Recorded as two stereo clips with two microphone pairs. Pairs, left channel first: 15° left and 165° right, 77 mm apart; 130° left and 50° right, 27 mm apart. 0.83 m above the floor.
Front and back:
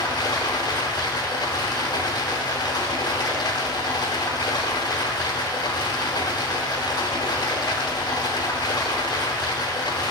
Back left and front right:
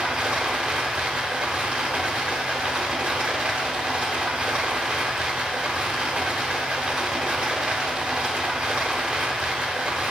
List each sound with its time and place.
0.0 s running water: 10° right, 1.1 m